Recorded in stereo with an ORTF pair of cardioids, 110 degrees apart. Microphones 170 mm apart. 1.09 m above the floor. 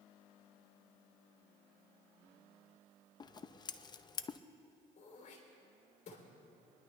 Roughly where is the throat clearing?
Ahead left.